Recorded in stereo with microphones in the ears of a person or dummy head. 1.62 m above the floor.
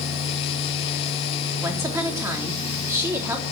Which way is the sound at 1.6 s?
15° right (ahead or behind).